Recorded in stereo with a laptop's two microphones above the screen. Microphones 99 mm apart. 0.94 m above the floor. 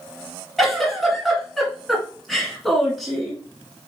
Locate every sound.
0.6 s a giggle: centre (ahead or behind), 2.0 m